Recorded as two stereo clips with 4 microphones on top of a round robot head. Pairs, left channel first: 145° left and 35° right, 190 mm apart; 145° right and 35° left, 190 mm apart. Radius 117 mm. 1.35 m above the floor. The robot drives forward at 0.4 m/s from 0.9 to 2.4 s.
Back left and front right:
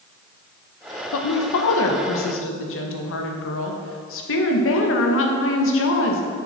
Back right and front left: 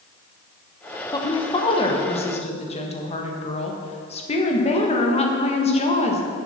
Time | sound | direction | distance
1.1 | a woman speaking | 145° left | 1.0 m